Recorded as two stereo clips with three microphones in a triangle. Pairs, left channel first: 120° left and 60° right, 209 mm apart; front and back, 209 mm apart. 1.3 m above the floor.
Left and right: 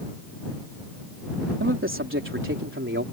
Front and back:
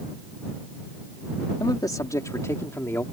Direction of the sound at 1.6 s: 70° right.